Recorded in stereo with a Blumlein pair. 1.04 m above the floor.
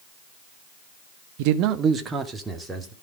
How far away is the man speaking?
About 1.1 m.